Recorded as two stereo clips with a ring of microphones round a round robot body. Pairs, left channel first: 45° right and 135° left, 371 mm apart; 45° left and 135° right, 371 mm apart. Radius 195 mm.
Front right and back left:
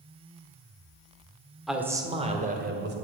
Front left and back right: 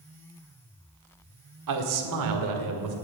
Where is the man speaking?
135° right, 1.6 m; by 2.9 s 165° right, 2.5 m.